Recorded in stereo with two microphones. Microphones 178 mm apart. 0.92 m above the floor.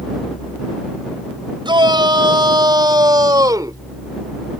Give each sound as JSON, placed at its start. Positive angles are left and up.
{"t": 1.6, "sound": "a shout", "side_deg": -30}